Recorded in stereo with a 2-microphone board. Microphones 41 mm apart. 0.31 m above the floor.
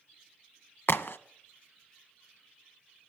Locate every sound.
0.9 s a crack: 70° left (ahead or behind), 0.6 m